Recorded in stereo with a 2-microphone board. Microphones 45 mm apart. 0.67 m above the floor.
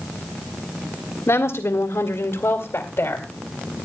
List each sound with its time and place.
1.3 s a woman speaking: 75° left (ahead or behind), 2.0 m; by 3.3 s 55° left (ahead or behind), 2.5 m